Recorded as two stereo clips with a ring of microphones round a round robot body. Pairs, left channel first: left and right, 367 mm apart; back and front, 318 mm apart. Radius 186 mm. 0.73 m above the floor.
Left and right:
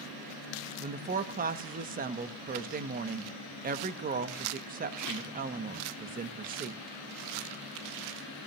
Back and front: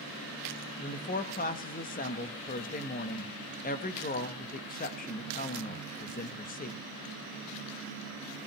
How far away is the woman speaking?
About 1.0 m.